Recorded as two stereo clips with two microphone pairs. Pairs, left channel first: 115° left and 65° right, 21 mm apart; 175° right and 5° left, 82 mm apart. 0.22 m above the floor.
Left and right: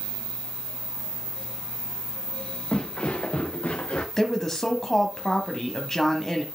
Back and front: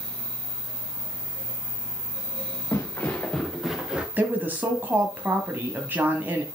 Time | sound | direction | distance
2.7 | footsteps | 130° left | 1.6 m
4.2 | a woman speaking | 55° left | 1.1 m